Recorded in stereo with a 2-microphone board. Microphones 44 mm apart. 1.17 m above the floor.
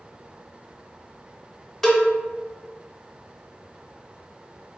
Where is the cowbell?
10° left (ahead or behind), 0.7 m.